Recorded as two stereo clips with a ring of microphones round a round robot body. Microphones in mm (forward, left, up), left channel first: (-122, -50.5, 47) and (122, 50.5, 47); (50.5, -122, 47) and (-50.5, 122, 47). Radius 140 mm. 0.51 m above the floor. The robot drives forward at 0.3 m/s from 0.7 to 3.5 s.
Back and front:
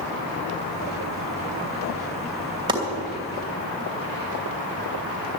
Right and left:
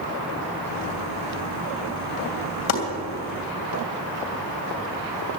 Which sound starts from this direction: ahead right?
Chopping, at 2.7 s.